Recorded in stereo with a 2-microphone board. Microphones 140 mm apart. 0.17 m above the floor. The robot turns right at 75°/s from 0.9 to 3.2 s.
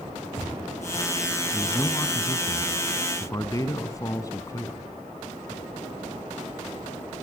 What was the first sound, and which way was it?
A man speaking, 5° left.